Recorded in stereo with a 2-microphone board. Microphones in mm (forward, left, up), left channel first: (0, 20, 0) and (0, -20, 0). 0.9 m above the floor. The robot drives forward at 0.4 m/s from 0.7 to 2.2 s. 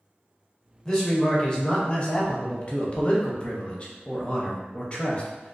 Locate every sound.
0.8 s a man speaking: 15° left (ahead or behind), 0.8 m; by 5.5 s 25° left (ahead or behind), 0.5 m